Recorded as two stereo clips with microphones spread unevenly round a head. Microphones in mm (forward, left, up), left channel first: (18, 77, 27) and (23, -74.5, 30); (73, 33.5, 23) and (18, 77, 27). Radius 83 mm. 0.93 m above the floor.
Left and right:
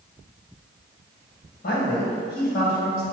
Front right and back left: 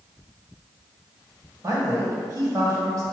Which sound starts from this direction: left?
A man speaking, at 1.6 s.